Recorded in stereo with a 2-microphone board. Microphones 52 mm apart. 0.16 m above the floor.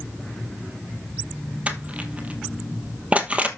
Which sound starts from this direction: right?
Crushing, at 1.7 s.